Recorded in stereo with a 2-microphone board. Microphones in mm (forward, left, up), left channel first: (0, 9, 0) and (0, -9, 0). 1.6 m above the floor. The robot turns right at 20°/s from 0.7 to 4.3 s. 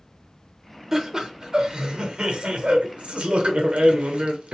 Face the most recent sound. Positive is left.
turn(degrees=-90)